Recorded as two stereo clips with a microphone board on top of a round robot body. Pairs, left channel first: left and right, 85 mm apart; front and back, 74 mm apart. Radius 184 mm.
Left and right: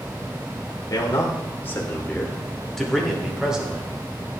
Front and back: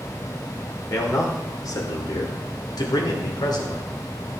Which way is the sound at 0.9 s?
40° left.